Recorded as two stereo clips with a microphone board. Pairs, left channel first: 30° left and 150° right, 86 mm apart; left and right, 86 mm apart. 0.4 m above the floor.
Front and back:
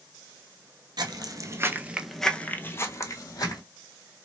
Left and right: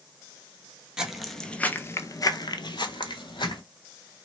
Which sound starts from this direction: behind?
Footsteps, at 1.0 s.